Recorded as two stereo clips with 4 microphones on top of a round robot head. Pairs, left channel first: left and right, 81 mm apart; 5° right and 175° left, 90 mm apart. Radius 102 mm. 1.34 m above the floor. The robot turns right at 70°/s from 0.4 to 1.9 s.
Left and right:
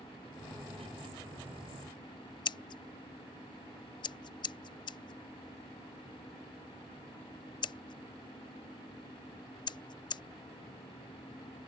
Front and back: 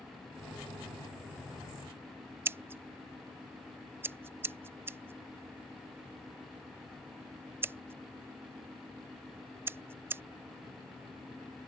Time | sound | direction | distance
2.5 | scissors | 110° left | ?